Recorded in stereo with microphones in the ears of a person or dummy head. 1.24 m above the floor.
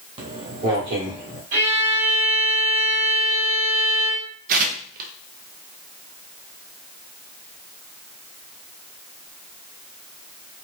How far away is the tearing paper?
About 0.6 m.